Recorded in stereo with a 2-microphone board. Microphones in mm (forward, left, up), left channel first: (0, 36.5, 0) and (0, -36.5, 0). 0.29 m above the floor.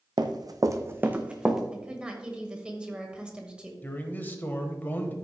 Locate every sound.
0.2 s running footsteps: 75° right (ahead or behind), 0.9 m; by 1.6 s 5° right (ahead or behind), 1.3 m
1.7 s a woman speaking: 15° right (ahead or behind), 1.3 m
3.8 s a man speaking: 25° left (ahead or behind), 1.2 m